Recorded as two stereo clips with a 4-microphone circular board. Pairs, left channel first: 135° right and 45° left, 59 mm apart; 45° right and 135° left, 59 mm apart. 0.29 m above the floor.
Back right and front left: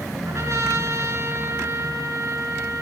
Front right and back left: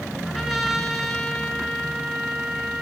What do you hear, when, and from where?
0.2 s a trumpet: 40° left, 1.9 m